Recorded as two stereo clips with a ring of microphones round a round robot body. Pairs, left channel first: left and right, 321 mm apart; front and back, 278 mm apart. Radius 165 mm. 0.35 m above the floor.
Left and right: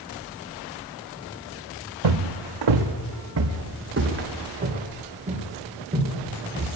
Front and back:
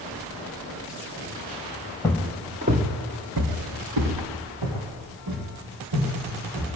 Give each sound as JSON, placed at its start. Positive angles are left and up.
{"t": 2.0, "sound": "footsteps", "azimuth_deg": -85, "distance_m": 1.5}